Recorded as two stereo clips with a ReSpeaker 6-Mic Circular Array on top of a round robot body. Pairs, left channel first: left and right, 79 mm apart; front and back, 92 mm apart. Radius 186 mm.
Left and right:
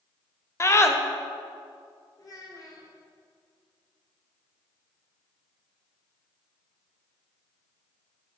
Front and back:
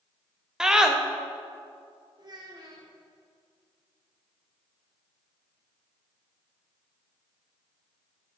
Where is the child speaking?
135° left, 1.4 m.